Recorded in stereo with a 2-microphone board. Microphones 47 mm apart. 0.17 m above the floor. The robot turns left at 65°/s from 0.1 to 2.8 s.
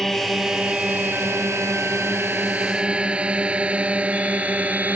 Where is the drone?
10° left (ahead or behind); by 5.0 s 35° right (ahead or behind).